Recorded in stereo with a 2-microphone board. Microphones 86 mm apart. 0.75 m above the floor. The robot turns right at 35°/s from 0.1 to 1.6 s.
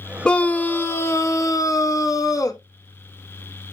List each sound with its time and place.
0.2 s a scream: 15° left, 1.2 m; by 2.6 s 60° left, 1.2 m